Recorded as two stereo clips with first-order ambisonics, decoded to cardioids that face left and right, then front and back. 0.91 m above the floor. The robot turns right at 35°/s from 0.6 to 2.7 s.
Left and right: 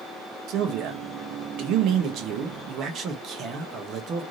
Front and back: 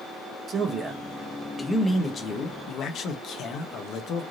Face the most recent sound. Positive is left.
turn(degrees=-45)